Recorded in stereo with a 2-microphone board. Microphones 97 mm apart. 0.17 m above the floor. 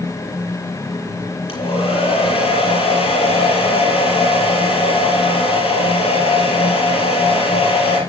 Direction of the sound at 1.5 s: 75° left (ahead or behind).